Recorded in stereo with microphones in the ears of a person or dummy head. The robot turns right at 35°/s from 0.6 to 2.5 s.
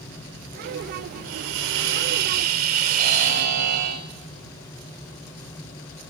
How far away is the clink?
No clink in this recording.